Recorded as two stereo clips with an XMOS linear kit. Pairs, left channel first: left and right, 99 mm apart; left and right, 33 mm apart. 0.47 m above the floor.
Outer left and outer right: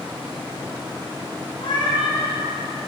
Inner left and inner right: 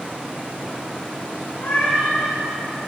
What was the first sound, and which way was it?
A cat meowing, 55° left (ahead or behind).